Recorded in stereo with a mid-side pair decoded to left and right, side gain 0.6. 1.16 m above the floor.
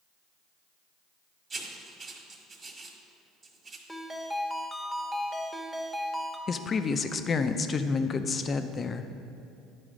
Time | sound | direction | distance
1.5 | writing | 35° right | 1.5 m
3.9 | a ringtone | straight ahead | 1.0 m
6.5 | a woman speaking | 35° left | 0.5 m